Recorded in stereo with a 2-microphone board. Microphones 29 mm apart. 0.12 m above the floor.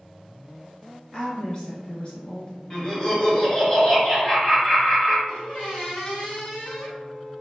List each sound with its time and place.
1.1 s a woman speaking: 35° left (ahead or behind), 1.5 m
2.7 s laughter: 25° left (ahead or behind), 1.9 m
5.3 s a squeak: 55° left (ahead or behind), 1.4 m